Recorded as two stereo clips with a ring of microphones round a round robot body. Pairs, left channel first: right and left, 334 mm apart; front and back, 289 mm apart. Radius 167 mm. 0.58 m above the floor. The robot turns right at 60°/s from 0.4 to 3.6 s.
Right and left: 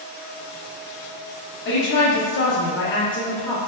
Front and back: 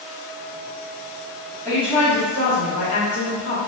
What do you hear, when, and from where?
1.6 s a woman speaking: 125° right, 0.7 m; by 3.6 s 10° right, 0.7 m